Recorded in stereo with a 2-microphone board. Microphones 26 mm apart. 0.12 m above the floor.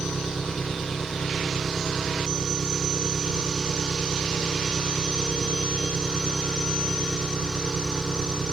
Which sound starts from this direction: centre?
An engine running, at 0.0 s.